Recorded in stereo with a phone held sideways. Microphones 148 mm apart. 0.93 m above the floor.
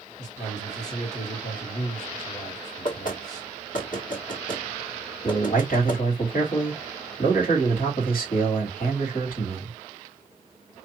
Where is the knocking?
65° left (ahead or behind), 1.3 m.